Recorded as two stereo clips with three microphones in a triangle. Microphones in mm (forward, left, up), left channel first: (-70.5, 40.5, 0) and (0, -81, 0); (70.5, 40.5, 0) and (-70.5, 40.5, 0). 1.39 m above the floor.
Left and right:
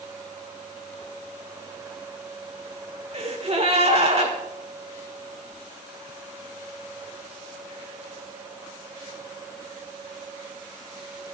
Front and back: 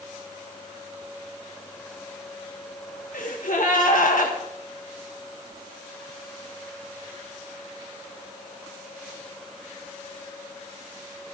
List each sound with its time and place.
3.1 s a gasp: 15° right, 1.8 m